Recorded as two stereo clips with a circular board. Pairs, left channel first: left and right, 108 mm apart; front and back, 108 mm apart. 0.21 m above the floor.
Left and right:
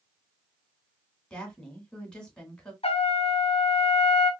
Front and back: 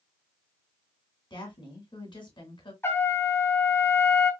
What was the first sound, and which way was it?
A woman speaking, 10° left.